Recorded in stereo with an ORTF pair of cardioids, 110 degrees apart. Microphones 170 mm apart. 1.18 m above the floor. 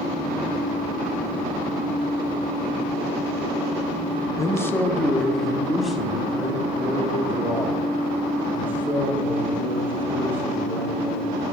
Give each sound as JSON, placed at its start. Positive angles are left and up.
{"t": 4.4, "sound": "a man speaking", "azimuth_deg": 20, "distance_m": 0.8}